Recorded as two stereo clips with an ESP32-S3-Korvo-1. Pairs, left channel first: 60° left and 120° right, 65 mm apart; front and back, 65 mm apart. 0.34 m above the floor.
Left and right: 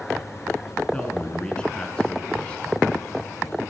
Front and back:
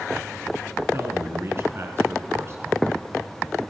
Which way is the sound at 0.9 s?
135° left.